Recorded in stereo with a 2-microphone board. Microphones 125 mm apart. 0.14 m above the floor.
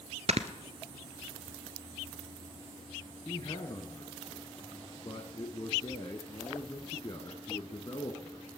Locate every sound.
0.3 s snoring: 60° right (ahead or behind), 0.9 m
3.2 s a man speaking: 40° left (ahead or behind), 1.5 m